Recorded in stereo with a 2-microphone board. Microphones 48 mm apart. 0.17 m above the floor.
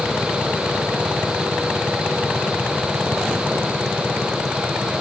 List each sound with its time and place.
Only background noise.